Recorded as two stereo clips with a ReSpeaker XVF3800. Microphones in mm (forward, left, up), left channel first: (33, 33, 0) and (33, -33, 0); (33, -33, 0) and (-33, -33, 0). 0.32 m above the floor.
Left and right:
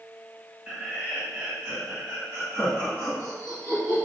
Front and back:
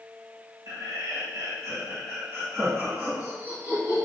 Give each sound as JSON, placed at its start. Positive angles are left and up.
{"t": 0.7, "sound": "laughter", "azimuth_deg": -165, "distance_m": 2.0}